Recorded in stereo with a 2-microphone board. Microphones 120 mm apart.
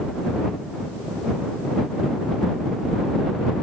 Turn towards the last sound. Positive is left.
No sound to turn to.